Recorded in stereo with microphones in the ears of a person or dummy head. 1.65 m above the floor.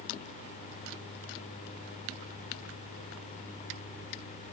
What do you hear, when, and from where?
Only background noise.